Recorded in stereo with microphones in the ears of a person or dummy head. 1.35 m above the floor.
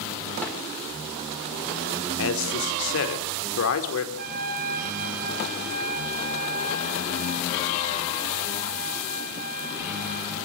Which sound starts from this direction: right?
A trumpet, at 4.2 s.